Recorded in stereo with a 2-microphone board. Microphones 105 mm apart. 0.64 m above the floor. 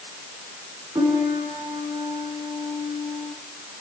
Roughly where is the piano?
Right.